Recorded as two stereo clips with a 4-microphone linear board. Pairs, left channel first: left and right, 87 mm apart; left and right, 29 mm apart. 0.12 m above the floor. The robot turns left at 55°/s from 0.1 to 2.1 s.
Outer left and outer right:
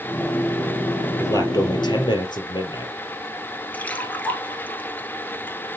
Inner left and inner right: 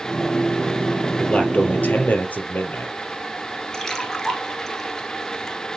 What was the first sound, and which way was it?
A man speaking, 135° left.